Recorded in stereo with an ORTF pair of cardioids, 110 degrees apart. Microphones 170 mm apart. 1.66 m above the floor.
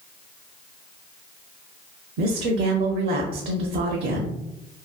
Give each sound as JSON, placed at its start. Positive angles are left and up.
{"t": 2.2, "sound": "a woman speaking", "azimuth_deg": -60, "distance_m": 0.5}